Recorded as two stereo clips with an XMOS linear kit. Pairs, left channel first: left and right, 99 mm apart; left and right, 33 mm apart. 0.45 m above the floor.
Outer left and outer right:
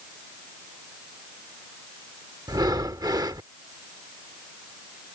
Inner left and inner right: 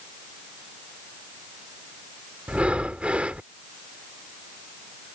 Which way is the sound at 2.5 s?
40° right (ahead or behind).